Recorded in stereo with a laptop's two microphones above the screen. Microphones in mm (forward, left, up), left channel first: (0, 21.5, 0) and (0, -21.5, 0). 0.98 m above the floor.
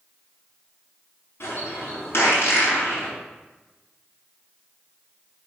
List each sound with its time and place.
1.4 s a bird: 65° left (ahead or behind), 4.5 m